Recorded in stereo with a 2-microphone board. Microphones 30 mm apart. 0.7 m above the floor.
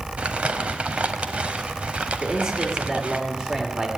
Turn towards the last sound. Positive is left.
turn(degrees=-20)  # may be behind; listen again after turning